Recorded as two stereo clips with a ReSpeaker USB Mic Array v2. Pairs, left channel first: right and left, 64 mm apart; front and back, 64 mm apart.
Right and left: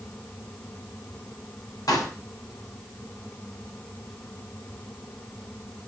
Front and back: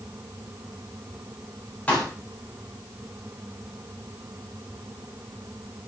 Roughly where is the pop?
Right.